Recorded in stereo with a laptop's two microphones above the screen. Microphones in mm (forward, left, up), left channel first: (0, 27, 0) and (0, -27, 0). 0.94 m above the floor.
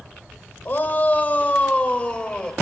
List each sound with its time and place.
0.7 s a shout: 40° left (ahead or behind), 3.5 m; by 2.5 s 20° left (ahead or behind), 4 m